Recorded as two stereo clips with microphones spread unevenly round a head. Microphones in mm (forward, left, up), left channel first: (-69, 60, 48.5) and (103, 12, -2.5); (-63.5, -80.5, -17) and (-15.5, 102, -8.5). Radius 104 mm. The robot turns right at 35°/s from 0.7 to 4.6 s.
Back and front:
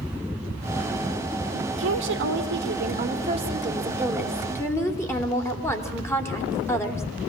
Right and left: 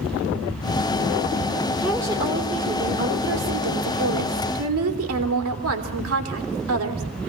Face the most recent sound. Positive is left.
turn(degrees=85)